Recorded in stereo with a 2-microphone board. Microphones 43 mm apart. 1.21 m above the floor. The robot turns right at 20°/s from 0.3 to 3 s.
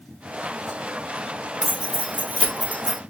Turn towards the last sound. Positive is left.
turn(degrees=-50)  # may be behind; listen again after turning